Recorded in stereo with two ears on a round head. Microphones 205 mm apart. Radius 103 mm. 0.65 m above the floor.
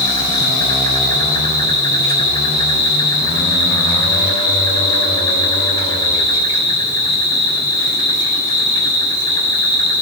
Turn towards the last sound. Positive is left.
turn(degrees=20)  # may be behind; listen again after turning